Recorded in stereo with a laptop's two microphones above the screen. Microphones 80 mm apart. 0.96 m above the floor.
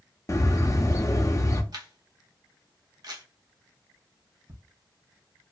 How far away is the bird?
About 0.5 m.